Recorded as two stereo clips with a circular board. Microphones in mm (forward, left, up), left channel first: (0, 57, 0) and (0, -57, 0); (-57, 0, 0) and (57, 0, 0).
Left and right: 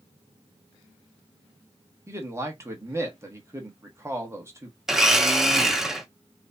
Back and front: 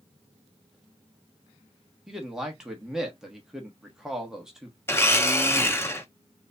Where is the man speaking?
80° right, 1.2 m.